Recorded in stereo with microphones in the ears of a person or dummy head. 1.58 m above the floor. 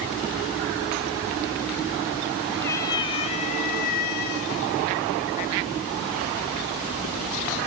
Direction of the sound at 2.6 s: 10° left (ahead or behind).